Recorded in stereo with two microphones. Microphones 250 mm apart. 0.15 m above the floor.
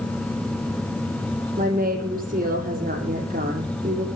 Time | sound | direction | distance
1.6 | a woman speaking | 35° right (ahead or behind) | 5.5 m